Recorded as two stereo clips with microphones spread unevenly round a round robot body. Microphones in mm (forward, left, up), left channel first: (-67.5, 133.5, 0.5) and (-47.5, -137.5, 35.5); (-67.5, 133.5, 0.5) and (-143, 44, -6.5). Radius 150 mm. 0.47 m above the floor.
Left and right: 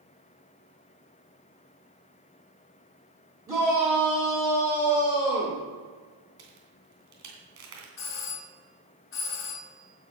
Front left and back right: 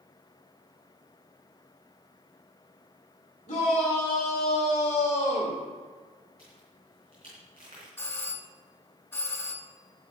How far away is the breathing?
I don't hear breathing.